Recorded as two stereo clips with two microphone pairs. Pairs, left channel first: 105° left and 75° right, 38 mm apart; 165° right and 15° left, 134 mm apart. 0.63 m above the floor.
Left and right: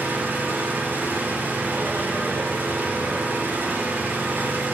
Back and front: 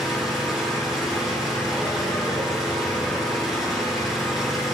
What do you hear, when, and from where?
0.0 s an engine running: 70° right, 9.5 m